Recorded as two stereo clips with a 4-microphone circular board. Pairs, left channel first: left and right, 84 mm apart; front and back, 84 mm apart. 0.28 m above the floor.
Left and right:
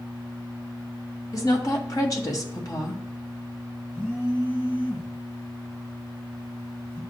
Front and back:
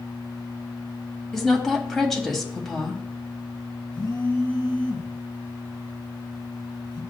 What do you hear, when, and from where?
1.3 s a woman speaking: 85° left, 1.5 m
3.9 s a phone buzzing: 30° left, 2.5 m